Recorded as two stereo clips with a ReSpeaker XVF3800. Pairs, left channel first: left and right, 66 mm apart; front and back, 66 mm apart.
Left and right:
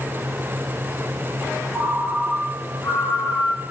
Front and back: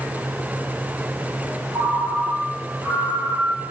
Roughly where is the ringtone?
Behind.